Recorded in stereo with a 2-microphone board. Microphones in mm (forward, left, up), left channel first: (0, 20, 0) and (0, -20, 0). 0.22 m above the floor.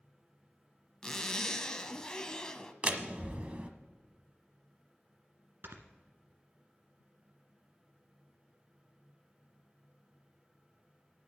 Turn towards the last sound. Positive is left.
turn(degrees=-65)  # may be behind; listen again after turning